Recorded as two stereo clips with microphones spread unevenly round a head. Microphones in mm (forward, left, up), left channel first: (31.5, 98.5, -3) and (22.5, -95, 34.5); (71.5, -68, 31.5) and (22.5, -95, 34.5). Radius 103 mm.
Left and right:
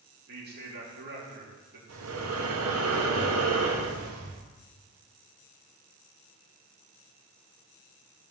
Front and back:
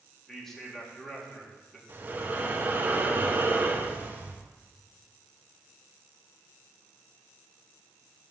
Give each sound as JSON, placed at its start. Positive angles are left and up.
{"t": 0.3, "sound": "a man speaking", "azimuth_deg": -55, "distance_m": 3.5}
{"t": 1.9, "sound": "breathing", "azimuth_deg": -95, "distance_m": 1.5}